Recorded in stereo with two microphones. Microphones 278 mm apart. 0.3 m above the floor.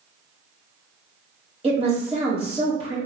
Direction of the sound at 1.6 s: 20° right (ahead or behind).